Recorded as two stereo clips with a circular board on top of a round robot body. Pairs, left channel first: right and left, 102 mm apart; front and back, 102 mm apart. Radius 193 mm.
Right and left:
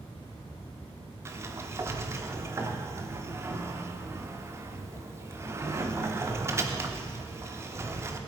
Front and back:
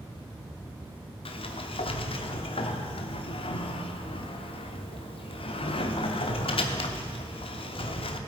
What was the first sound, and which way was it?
A sliding door, 25° left.